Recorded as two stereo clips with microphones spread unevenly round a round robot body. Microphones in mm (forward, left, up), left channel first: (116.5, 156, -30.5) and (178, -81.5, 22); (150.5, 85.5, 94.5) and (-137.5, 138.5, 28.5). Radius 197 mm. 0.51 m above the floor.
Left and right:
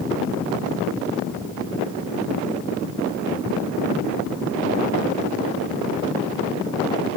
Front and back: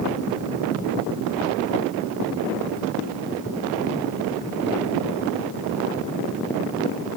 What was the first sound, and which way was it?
Only background noise.